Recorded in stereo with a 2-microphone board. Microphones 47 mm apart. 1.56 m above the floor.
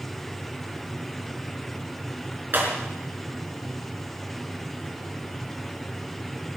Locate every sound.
2.5 s breaking glass: 45° right (ahead or behind), 4.5 m